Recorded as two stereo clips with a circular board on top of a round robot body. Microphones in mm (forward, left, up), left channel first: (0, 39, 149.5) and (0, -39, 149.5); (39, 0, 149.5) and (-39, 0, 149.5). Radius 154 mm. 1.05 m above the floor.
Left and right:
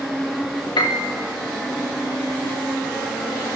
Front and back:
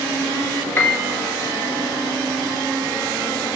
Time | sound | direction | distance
0.8 | a piano | 70° left | 3.5 m